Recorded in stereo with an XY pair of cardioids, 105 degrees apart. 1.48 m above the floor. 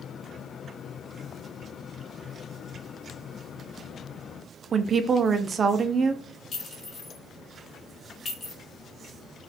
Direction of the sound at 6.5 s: 45° left.